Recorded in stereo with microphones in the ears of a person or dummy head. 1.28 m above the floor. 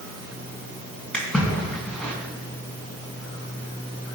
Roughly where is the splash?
Centre.